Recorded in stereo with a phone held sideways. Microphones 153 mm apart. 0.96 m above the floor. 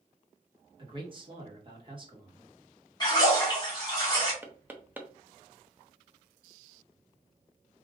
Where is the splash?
25° left (ahead or behind), 2 m.